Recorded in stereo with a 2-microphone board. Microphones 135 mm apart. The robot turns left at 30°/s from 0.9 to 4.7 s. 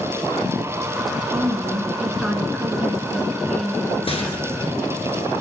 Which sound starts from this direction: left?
A rattle, at 4.1 s.